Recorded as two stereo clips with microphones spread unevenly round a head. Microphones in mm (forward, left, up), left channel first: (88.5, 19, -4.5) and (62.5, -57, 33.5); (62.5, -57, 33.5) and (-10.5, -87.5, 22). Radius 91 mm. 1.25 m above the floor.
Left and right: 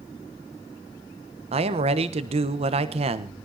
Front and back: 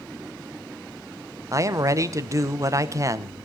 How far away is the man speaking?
About 1.2 m.